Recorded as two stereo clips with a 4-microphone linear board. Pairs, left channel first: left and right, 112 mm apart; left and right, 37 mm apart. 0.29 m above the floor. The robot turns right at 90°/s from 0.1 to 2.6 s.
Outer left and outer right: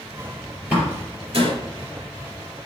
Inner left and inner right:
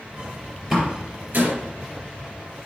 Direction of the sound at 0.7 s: 10° right (ahead or behind).